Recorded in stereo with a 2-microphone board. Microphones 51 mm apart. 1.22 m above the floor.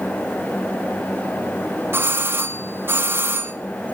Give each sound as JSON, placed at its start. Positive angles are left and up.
{"t": 1.9, "sound": "a doorbell", "side_deg": -50, "distance_m": 3.0}